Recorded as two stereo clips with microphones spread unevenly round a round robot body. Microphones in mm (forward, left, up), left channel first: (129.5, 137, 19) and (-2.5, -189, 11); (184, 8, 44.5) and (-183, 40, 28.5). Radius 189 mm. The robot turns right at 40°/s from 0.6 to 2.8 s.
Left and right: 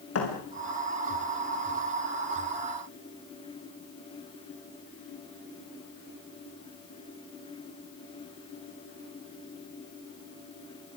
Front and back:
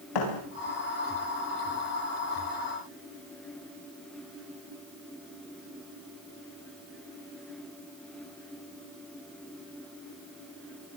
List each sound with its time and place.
0.1 s a thud: 20° left, 8.5 m